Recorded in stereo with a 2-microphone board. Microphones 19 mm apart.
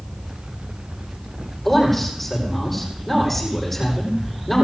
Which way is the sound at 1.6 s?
10° left (ahead or behind).